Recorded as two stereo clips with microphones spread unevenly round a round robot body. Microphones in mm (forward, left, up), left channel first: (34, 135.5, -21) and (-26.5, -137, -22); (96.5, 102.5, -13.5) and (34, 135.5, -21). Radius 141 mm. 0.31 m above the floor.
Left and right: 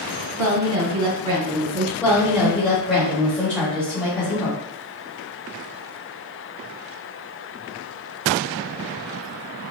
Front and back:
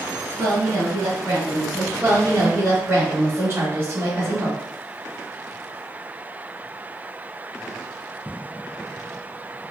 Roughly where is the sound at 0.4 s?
Right.